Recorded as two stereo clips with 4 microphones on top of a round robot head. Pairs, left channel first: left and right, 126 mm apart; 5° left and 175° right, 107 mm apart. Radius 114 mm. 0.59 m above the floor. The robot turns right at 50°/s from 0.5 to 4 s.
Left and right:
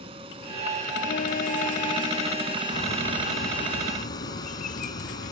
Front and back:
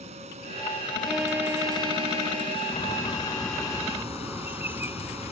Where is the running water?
145° right; by 5.3 s 30° left.